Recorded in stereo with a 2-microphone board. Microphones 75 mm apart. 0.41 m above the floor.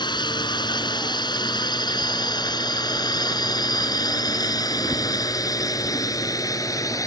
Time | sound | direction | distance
0.0 | a drone | 75° left (ahead or behind) | ?